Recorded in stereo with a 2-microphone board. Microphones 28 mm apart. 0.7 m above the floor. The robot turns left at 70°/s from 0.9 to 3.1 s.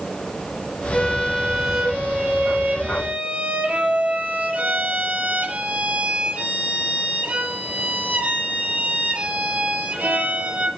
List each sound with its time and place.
0.9 s a violin: 35° left, 5.5 m; by 10.7 s 120° right, 5.5 m